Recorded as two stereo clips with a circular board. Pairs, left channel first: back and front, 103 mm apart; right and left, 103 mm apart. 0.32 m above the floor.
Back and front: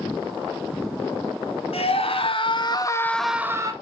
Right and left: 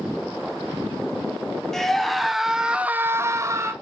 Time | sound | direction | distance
1.7 | a scream | 175° right | 2.5 m